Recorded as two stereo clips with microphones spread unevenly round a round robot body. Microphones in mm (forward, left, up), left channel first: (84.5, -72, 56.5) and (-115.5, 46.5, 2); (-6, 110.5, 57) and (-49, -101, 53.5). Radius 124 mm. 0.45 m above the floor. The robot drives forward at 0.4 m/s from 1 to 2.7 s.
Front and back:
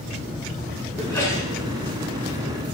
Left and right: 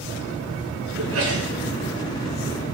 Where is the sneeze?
110° right, 7 m.